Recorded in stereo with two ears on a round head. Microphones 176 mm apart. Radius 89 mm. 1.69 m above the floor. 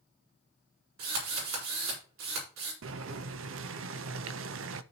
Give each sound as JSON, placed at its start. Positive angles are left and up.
{"t": 1.0, "sound": "a drill", "side_deg": -70, "distance_m": 5.0}
{"t": 2.8, "sound": "boiling", "side_deg": -75, "distance_m": 0.6}